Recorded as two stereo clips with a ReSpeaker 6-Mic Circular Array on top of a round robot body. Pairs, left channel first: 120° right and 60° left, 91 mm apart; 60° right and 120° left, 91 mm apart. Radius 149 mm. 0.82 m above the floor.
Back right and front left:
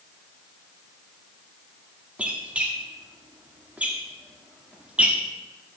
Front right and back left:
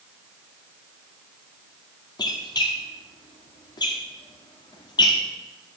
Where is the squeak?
15° right, 1.2 m.